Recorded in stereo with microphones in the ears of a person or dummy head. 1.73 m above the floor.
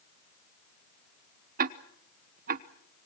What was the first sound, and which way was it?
Ticking, 50° right (ahead or behind).